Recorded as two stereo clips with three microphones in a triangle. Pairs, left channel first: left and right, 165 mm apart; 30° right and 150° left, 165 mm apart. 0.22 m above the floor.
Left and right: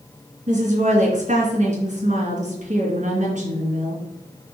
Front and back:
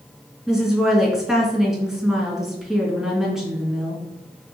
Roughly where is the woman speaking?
Behind right.